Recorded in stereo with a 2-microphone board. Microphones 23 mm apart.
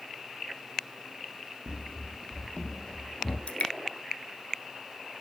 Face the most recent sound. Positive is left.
turn(degrees=65)  # may be behind; listen again after turning